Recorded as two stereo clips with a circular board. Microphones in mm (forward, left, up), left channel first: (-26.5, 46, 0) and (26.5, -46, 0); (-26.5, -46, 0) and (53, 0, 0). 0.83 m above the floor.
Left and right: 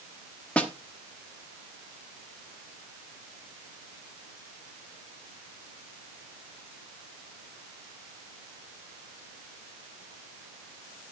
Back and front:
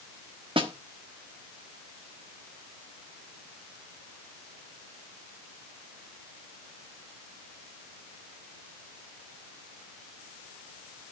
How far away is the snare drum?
About 1.2 m.